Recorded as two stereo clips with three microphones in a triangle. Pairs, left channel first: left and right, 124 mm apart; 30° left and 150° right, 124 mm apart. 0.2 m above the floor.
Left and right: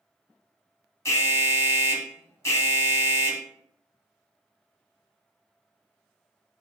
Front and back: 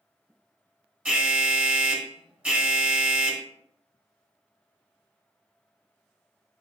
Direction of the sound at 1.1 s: 140° left.